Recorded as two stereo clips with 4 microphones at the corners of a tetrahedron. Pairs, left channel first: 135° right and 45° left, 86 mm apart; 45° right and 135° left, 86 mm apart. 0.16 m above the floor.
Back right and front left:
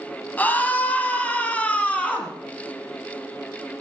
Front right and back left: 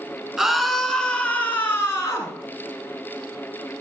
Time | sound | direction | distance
0.4 | a scream | 155° right | 1.5 m